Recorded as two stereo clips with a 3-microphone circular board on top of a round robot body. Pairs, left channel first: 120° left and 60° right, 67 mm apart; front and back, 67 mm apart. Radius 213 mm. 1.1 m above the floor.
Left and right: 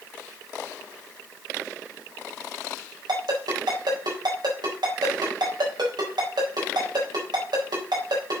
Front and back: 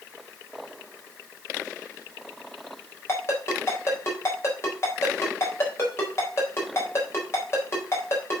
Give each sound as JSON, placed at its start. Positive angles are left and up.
{"t": 3.1, "sound": "a ringtone", "azimuth_deg": -50, "distance_m": 4.0}